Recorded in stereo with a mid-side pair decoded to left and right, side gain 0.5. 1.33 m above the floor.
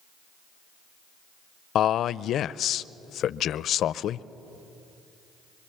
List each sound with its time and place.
1.8 s a man speaking: 60° left, 0.5 m